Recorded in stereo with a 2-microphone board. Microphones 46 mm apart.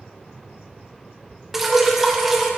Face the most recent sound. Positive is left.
turn(degrees=-5)  # may be behind; listen again after turning